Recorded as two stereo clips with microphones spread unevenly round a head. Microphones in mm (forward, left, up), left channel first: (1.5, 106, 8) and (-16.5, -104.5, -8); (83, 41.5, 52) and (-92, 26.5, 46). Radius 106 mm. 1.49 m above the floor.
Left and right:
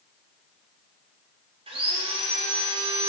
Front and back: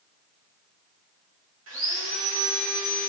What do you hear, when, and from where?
1.7 s sawing: 160° right, 2.5 m